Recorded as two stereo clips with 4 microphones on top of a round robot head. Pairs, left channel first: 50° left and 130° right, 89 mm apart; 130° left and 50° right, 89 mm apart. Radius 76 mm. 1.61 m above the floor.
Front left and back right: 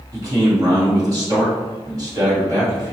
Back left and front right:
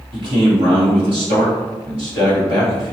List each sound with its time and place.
0.1 s a man speaking: 85° right, 1.4 m